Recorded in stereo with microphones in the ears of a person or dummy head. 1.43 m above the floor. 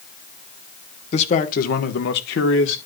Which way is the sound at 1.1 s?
45° left (ahead or behind).